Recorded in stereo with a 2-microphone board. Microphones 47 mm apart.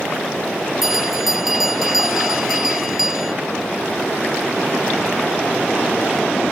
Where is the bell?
5° right (ahead or behind).